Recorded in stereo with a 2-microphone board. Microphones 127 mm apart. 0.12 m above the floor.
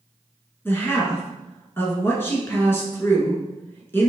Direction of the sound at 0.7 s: 20° left (ahead or behind).